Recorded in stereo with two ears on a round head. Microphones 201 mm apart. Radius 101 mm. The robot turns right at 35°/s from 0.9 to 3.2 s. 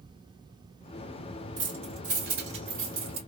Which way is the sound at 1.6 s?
20° right (ahead or behind).